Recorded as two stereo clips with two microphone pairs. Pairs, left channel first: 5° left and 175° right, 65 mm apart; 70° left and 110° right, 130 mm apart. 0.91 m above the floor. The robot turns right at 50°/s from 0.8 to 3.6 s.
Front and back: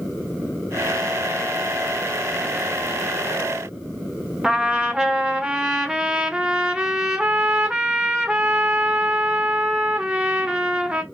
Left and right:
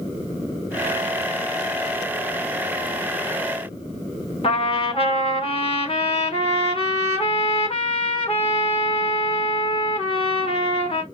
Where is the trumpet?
110° left, 1.0 m.